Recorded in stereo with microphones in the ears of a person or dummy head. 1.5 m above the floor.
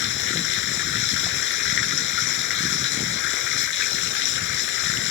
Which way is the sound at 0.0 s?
60° left (ahead or behind).